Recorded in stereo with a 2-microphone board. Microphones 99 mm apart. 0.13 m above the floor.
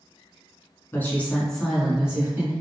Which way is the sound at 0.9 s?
25° left (ahead or behind).